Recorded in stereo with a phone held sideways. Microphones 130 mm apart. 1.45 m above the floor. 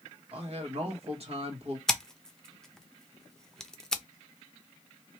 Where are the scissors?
5° left (ahead or behind), 0.6 m.